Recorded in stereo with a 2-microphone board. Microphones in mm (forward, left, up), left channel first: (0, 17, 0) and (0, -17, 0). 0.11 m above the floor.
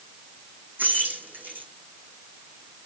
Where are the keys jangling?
70° right (ahead or behind), 5 m.